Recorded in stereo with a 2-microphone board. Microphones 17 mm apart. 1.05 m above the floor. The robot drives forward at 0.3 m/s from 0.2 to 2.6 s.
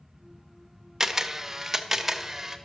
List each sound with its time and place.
1.0 s a camera shutter: 25° right (ahead or behind), 1.0 m; by 2.6 s 15° right (ahead or behind), 1.3 m